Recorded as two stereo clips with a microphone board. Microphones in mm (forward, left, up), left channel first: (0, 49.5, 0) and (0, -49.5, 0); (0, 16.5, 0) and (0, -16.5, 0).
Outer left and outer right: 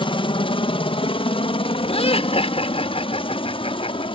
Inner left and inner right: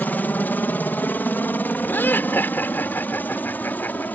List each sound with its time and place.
0.0 s a helicopter: 60° left (ahead or behind)
1.9 s laughter: 80° left